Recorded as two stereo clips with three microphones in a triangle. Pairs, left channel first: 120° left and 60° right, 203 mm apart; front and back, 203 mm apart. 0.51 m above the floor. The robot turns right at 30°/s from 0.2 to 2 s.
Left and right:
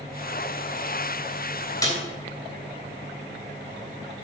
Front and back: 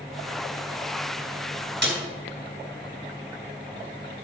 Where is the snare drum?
170° right, 3 m; by 2.0 s 165° right, 3 m.